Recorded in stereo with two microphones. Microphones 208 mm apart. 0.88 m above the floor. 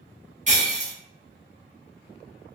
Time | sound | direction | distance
0.5 | breaking glass | 35° right (ahead or behind) | 0.9 m